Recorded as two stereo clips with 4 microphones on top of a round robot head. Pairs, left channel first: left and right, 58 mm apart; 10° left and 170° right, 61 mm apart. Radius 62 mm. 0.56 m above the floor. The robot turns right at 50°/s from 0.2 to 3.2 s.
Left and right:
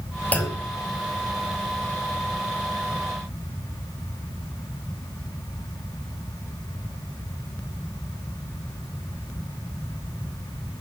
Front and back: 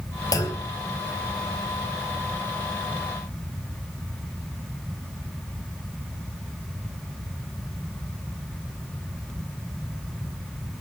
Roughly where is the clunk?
Ahead left.